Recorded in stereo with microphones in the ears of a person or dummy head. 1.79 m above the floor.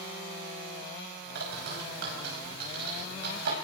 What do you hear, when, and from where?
1.4 s a bird: 70° right (ahead or behind), 5.5 m